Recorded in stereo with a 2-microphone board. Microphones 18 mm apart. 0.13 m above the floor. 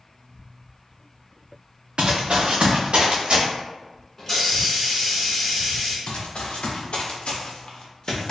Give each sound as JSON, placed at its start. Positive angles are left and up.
{"t": 2.0, "sound": "running footsteps", "side_deg": -65, "distance_m": 0.6}
{"t": 4.2, "sound": "a hiss", "side_deg": 15, "distance_m": 1.0}
{"t": 6.1, "sound": "running footsteps", "side_deg": 75, "distance_m": 1.0}